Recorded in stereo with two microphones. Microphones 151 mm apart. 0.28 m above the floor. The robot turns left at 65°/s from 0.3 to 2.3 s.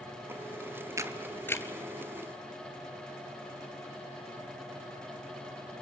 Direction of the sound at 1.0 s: 20° right (ahead or behind).